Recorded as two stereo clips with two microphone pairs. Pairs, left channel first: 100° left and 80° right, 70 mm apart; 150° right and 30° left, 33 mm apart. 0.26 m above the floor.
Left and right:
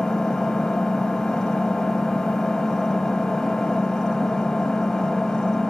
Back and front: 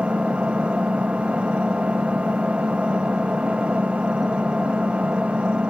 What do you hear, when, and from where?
0.0 s an engine running: 25° left, 1.0 m